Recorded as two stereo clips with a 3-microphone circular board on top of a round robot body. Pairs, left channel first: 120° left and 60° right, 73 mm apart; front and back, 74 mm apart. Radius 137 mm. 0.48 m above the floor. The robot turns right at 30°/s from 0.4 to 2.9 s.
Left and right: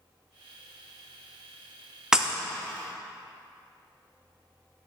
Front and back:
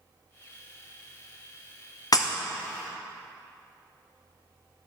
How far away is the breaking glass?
About 0.8 m.